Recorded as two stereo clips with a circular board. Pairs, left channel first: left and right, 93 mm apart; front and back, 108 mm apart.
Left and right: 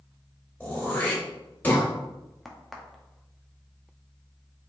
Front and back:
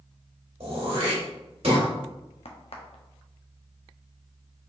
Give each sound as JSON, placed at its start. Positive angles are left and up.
{"t": 0.6, "sound": "throat clearing", "azimuth_deg": 160, "distance_m": 1.9}
{"t": 2.5, "sound": "a crack", "azimuth_deg": 0, "distance_m": 0.7}